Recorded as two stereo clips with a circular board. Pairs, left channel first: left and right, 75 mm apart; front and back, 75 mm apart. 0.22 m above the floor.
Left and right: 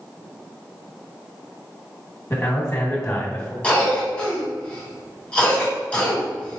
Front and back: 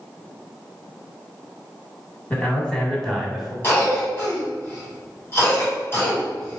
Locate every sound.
2.3 s a man speaking: 60° left, 1.3 m; by 3.5 s 100° left, 1.1 m
3.6 s a cough: 25° left, 1.9 m